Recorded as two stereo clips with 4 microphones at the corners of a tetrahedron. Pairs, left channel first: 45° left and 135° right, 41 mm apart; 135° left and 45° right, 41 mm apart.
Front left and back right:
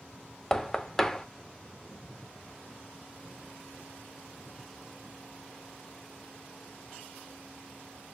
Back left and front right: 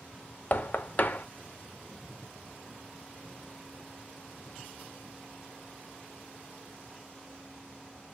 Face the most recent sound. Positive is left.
turn(degrees=120)